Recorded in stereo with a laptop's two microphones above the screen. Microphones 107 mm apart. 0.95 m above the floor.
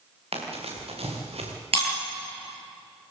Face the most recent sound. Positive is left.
turn(degrees=-60)  # may be behind; listen again after turning